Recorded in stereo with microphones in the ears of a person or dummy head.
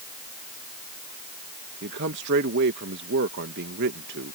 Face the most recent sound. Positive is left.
turn(degrees=-55)  # may be behind; listen again after turning